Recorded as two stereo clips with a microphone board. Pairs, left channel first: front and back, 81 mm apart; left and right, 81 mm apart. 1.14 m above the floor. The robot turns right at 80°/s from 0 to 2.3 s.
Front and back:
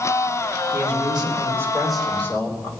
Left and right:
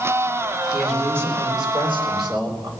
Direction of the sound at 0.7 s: 170° left.